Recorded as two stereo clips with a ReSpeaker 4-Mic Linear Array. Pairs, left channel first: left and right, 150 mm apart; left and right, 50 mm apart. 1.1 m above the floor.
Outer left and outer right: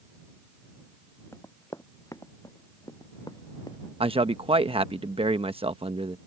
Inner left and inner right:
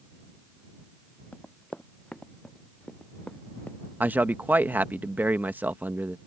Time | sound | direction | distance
1.3 | running footsteps | 20° left (ahead or behind) | ?
4.0 | a man speaking | 35° right (ahead or behind) | ?